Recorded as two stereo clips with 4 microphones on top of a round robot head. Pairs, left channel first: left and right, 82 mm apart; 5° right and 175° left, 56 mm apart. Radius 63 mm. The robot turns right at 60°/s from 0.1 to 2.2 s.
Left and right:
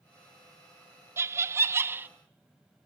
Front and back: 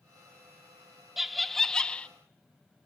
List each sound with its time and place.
1.2 s laughter: 105° right, 0.6 m; by 2.1 s 50° right, 0.6 m